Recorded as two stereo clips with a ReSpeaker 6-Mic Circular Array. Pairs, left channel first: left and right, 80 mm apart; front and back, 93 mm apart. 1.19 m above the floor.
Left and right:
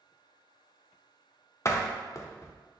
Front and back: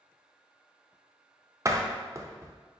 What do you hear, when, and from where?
1.6 s a door slam: 135° left, 0.5 m